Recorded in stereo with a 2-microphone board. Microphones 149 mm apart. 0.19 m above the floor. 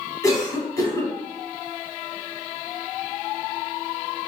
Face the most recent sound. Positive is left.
turn(degrees=25)  # may be behind; listen again after turning